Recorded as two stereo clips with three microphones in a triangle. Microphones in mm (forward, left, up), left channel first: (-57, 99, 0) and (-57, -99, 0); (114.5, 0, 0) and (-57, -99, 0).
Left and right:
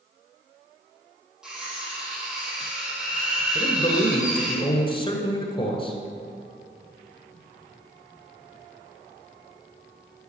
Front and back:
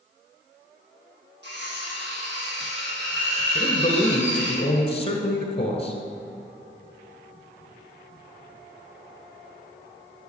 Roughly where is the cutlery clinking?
Behind.